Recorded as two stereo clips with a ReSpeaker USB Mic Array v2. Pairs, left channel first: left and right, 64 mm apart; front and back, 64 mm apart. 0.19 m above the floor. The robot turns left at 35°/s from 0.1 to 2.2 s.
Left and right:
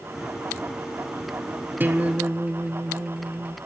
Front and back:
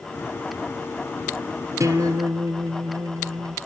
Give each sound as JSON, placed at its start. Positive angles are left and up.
{"t": 1.8, "sound": "a guitar", "azimuth_deg": -150, "distance_m": 1.0}